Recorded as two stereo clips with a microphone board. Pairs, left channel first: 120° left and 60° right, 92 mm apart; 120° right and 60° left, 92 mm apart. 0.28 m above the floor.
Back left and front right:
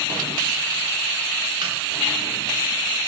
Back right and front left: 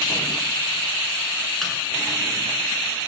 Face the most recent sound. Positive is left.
turn(degrees=-35)